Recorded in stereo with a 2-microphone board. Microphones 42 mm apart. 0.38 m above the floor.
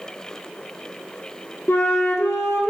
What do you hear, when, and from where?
1.7 s a flute: 70° left (ahead or behind), 1.1 m